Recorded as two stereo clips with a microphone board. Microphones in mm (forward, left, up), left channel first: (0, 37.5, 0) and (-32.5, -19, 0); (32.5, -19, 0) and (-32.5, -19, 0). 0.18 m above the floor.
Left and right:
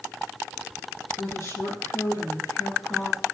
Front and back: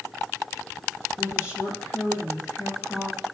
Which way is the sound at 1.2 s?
40° left.